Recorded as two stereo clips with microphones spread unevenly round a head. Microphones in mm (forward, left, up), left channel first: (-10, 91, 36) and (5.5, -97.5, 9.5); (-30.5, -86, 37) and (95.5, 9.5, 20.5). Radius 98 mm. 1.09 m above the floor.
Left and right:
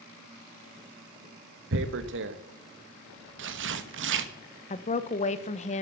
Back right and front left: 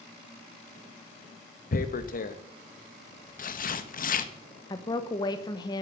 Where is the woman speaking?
150° left, 1.0 m.